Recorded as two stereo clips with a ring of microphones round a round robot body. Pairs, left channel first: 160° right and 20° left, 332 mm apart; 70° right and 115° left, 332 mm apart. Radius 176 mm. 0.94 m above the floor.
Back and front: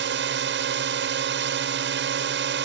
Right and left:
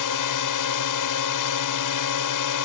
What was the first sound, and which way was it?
A drone, 35° right.